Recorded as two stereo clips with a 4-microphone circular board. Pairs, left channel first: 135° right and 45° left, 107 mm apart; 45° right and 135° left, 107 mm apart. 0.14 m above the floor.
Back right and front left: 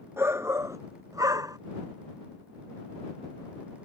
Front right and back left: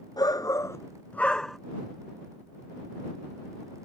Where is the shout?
15° right; by 1.6 s 45° left.